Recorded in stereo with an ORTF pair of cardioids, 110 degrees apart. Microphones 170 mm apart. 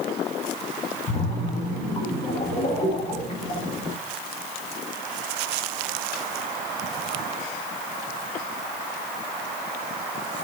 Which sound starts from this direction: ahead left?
A splash, at 1.1 s.